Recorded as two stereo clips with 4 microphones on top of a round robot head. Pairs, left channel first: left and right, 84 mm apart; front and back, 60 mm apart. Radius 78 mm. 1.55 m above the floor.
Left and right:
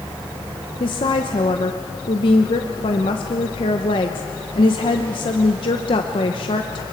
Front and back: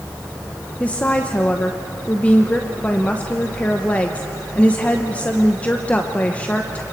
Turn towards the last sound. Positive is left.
turn(degrees=70)